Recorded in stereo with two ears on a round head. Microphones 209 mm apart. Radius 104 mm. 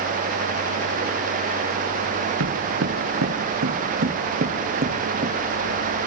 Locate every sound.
2.4 s footsteps: 65° right (ahead or behind), 4 m; by 5.3 s 30° right (ahead or behind), 2.5 m